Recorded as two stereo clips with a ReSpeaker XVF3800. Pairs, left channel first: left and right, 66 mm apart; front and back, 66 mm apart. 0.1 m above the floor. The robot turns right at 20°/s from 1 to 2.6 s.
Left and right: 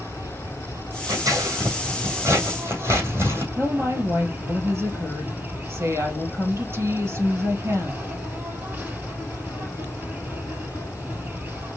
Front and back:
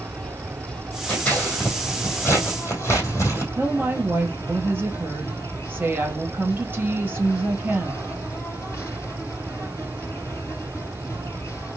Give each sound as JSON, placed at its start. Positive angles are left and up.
{"t": 0.0, "sound": "an insect", "azimuth_deg": -70, "distance_m": 3.5}
{"t": 1.1, "sound": "scissors", "azimuth_deg": -75, "distance_m": 3.0}
{"t": 3.5, "sound": "a woman speaking", "azimuth_deg": -125, "distance_m": 2.5}